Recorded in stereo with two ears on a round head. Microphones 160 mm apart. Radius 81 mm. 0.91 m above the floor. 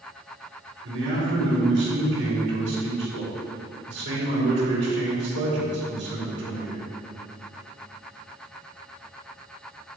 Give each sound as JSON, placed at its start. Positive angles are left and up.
{"t": 0.8, "sound": "a man speaking", "side_deg": -75, "distance_m": 3.5}